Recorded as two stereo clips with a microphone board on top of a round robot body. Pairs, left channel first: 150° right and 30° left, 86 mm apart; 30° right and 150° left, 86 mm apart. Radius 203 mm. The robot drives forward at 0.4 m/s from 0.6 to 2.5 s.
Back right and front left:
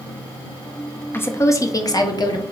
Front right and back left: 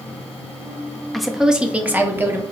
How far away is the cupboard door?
No cupboard door in this recording.